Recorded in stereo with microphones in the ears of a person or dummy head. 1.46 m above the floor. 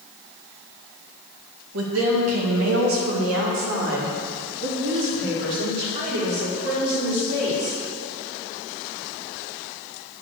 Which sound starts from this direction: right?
A woman speaking, at 1.7 s.